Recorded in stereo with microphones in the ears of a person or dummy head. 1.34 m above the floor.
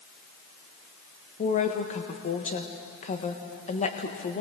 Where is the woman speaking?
40° left (ahead or behind), 1.6 m.